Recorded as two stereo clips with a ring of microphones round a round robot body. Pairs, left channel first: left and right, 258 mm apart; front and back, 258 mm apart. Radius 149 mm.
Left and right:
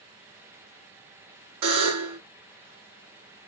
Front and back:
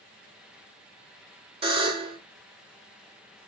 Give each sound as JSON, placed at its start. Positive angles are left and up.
{"t": 1.6, "sound": "a buzzer", "azimuth_deg": -115, "distance_m": 1.9}